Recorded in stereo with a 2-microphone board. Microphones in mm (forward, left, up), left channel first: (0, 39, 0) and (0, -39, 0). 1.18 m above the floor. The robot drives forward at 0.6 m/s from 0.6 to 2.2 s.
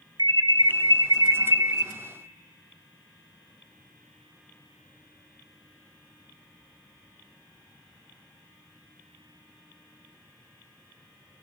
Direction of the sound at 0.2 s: 70° right (ahead or behind).